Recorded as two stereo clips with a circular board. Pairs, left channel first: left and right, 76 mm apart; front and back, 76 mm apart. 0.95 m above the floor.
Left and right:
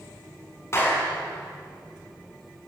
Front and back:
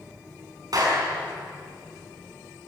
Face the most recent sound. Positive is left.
turn(degrees=145)